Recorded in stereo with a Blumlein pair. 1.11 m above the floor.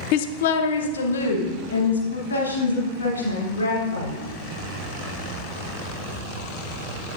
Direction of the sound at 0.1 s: 45° left.